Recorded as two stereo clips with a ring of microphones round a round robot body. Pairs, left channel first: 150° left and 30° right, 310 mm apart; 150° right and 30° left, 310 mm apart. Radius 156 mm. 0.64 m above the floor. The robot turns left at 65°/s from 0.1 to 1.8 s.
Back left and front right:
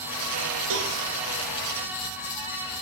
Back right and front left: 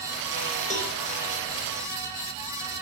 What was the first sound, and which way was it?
A cowbell, 80° right.